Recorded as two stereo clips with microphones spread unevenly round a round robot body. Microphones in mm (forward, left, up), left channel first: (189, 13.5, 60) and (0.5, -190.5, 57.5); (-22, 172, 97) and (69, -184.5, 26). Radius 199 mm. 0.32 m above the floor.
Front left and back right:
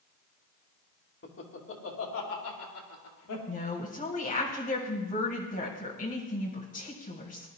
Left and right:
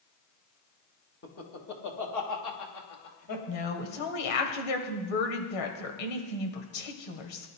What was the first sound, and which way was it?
Laughter, 50° left.